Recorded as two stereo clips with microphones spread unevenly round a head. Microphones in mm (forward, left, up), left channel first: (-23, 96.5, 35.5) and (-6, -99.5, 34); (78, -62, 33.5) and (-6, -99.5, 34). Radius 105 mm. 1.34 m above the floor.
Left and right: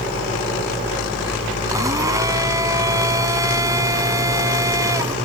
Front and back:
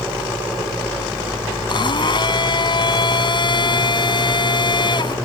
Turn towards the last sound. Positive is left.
turn(degrees=-10)